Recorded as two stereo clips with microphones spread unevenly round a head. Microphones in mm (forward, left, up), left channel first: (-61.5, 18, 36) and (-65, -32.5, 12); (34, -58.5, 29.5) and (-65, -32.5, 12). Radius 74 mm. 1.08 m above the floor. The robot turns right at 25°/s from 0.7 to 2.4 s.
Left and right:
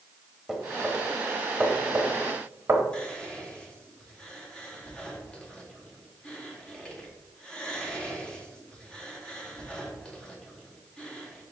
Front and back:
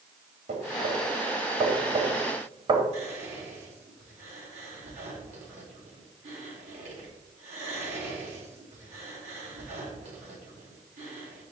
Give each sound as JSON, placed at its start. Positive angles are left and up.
{"t": 0.5, "sound": "knocking", "azimuth_deg": 165, "distance_m": 1.2}
{"t": 2.9, "sound": "whispering", "azimuth_deg": 160, "distance_m": 2.5}